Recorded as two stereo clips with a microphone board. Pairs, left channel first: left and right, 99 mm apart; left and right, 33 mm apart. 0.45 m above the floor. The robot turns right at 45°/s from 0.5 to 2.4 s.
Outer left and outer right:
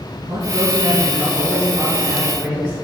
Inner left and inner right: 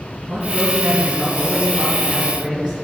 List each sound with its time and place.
0.2 s a man speaking: 115° right, 5 m; by 2.7 s 30° right, 5 m